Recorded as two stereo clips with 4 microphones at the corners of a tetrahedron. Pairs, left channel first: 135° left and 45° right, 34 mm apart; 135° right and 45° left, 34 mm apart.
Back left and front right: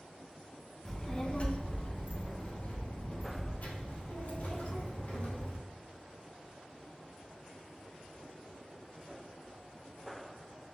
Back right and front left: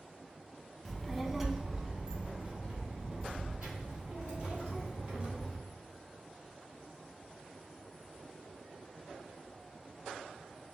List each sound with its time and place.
0.8 s a child speaking: 155° left, 0.6 m; by 5.6 s 105° left, 3 m